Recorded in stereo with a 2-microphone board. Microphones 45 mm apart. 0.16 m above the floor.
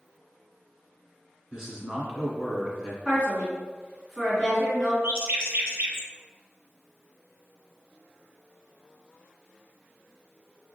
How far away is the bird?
About 0.8 m.